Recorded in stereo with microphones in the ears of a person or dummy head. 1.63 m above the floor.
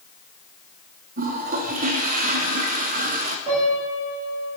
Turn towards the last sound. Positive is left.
turn(degrees=-25)  # may be behind; listen again after turning